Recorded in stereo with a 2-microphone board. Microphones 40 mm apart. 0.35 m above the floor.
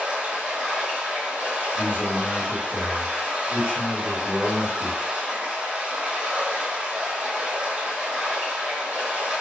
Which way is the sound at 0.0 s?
30° right (ahead or behind).